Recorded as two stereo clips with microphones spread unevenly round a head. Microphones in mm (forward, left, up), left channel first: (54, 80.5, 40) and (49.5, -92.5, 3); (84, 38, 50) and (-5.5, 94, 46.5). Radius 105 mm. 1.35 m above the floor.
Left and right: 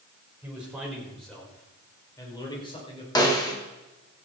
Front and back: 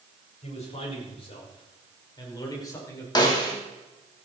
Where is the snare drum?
20° left, 3.5 m.